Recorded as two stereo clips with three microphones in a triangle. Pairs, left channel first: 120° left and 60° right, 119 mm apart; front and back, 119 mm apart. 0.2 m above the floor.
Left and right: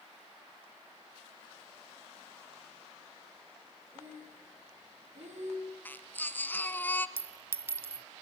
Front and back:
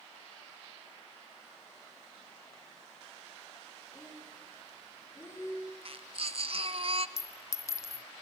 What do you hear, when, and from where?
3.9 s breathing: 65° right, 6 m
5.8 s a baby crying: 170° right, 0.8 m
7.2 s a clink: 15° right, 0.6 m